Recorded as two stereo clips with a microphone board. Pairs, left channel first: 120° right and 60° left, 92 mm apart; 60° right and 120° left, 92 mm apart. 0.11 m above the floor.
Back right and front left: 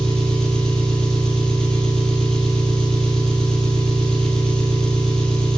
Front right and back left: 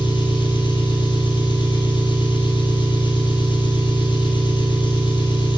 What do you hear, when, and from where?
0.0 s an engine running: 35° right, 2.5 m